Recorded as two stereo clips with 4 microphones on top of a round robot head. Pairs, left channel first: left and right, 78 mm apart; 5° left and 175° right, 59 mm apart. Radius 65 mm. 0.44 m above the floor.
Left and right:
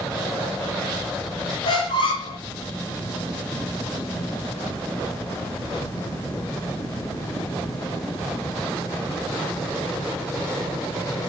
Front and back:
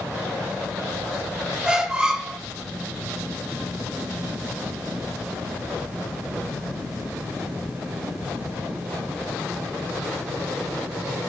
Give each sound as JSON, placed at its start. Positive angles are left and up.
{"t": 1.6, "sound": "a squeak", "azimuth_deg": 110, "distance_m": 0.8}